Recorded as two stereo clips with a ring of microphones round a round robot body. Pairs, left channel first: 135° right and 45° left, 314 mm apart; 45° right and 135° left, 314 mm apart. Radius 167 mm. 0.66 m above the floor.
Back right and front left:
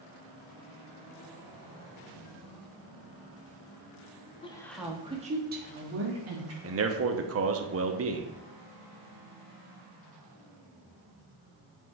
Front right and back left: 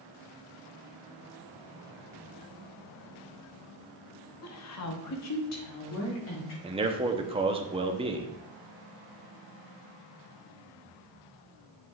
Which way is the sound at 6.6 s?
70° left.